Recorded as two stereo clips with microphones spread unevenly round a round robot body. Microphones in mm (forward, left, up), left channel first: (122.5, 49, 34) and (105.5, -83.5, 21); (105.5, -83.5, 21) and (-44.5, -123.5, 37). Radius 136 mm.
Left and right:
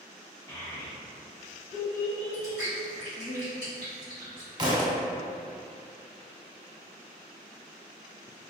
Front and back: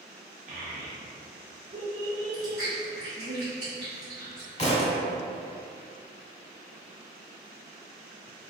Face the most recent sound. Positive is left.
turn(degrees=-35)